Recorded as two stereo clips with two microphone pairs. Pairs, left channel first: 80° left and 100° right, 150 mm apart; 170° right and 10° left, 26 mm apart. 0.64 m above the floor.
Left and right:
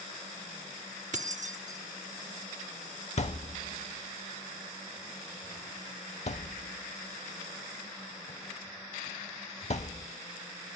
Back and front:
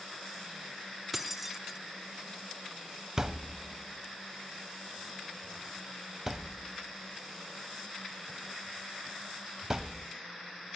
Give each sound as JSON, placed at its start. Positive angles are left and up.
{"t": 1.1, "sound": "keys jangling", "azimuth_deg": -70, "distance_m": 1.0}
{"t": 3.2, "sound": "a thud", "azimuth_deg": 75, "distance_m": 0.6}